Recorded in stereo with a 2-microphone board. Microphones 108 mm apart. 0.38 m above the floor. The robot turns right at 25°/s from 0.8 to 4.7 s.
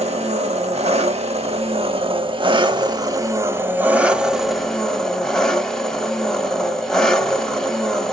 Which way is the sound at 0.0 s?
90° right.